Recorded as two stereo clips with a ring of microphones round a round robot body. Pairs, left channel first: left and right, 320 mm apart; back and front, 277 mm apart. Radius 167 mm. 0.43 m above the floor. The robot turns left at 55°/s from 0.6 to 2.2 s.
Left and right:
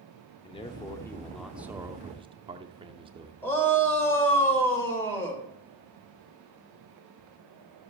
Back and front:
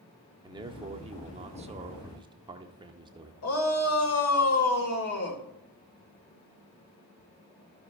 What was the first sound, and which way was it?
A man speaking, 45° left.